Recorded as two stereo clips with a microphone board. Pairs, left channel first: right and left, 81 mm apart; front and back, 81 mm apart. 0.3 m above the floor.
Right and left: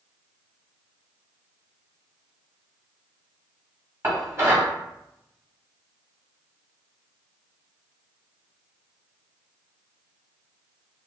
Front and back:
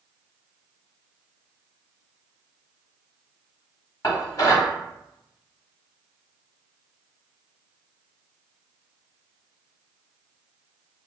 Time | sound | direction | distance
4.0 | dishes clattering | 35° left | 1.2 m